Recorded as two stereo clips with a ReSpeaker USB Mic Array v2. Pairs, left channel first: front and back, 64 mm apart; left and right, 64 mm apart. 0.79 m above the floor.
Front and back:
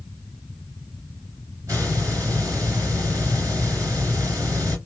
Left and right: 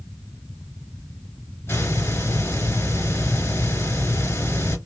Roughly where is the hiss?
Behind left.